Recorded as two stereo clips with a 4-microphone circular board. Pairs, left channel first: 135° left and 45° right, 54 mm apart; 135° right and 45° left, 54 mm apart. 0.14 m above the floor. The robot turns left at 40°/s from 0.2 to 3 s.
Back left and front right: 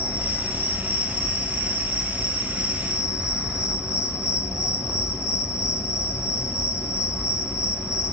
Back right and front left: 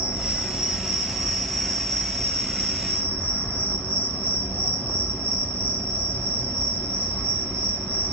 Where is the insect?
5° left, 1.9 m; by 8.1 s 110° right, 1.9 m.